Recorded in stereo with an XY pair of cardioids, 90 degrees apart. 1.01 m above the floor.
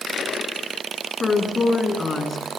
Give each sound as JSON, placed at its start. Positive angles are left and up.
{"t": 1.2, "sound": "a woman speaking", "azimuth_deg": 35, "distance_m": 9.5}